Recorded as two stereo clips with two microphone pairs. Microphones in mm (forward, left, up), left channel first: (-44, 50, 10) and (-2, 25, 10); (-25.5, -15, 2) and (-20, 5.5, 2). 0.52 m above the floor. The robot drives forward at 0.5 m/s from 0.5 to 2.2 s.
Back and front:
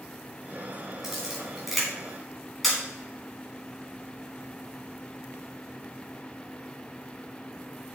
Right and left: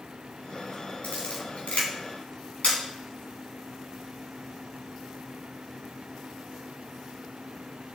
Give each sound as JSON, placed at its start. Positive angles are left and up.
{"t": 1.0, "sound": "a camera shutter", "azimuth_deg": -115, "distance_m": 3.0}